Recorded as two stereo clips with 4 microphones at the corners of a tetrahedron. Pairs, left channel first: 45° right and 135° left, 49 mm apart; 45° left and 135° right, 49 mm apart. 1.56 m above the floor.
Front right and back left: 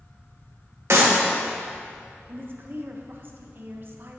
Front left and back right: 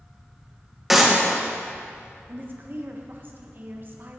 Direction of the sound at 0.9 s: 140° left.